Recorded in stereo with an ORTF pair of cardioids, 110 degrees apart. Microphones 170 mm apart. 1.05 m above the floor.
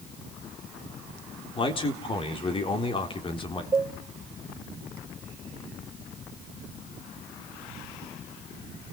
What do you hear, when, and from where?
1.6 s a man speaking: 30° left, 3.5 m
3.7 s a cowbell: 20° right, 1.3 m